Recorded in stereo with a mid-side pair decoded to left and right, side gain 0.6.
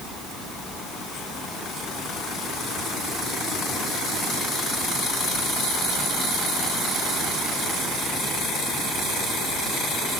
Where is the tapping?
No tapping in this recording.